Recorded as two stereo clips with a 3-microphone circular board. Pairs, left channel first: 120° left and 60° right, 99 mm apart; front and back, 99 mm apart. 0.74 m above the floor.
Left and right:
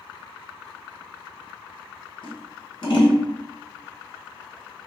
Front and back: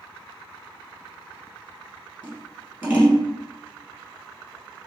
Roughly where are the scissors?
Left.